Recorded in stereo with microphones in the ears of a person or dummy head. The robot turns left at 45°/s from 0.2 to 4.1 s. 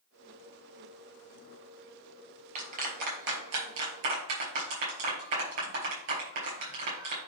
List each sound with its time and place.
2.5 s a clap: 35° right (ahead or behind), 4.5 m; by 7.2 s 75° right (ahead or behind), 4.5 m